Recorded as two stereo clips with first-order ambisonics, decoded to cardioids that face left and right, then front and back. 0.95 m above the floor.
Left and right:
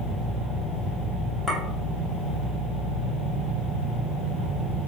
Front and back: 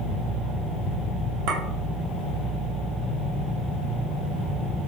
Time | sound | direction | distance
1.5 | a clink | straight behind | 0.9 m